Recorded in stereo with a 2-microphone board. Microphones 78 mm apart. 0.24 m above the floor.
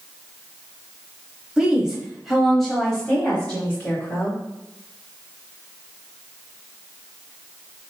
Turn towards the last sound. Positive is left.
turn(degrees=25)  # may be behind; listen again after turning